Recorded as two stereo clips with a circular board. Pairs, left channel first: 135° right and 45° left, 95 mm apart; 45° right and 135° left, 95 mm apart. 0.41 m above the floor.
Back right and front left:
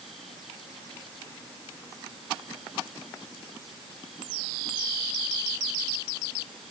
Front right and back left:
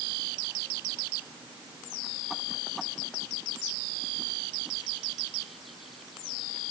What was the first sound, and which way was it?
Only background noise.